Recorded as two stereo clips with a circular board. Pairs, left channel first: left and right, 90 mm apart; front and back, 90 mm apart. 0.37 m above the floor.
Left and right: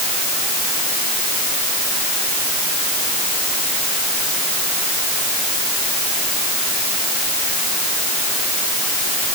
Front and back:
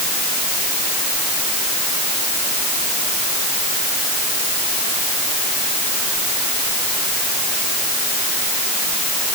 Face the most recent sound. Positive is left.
No sound to turn to.